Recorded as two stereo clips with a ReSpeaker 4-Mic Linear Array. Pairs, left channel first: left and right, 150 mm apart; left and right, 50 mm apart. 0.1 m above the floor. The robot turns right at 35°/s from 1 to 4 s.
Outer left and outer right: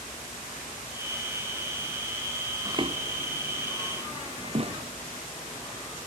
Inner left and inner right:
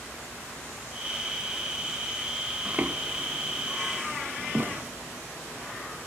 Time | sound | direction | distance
2.6 | footsteps | 20° right (ahead or behind) | ?